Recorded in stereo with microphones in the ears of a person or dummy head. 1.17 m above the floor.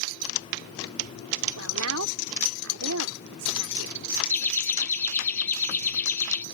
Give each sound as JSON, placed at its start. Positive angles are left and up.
{"t": 1.6, "sound": "a woman speaking", "side_deg": -75}
{"t": 4.3, "sound": "laughter", "side_deg": 10}